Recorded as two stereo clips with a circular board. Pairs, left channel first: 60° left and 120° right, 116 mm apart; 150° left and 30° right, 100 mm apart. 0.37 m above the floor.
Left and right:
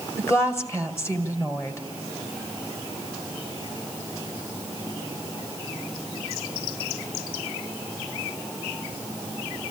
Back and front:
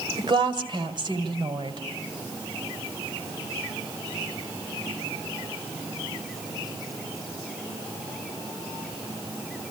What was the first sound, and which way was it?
A woman speaking, straight ahead.